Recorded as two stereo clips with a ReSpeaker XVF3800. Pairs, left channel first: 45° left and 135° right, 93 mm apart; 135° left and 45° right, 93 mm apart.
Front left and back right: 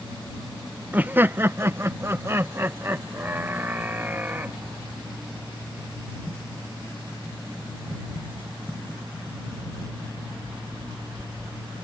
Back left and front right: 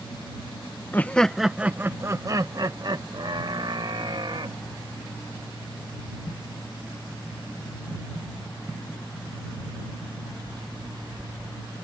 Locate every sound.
0.9 s laughter: 175° left; by 4.6 s 65° right